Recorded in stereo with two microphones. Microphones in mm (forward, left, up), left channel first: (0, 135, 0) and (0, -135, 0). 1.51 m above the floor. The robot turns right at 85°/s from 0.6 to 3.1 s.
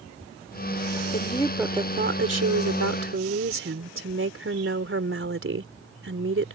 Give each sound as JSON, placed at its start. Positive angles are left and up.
{"t": 1.1, "sound": "a woman speaking", "azimuth_deg": 140}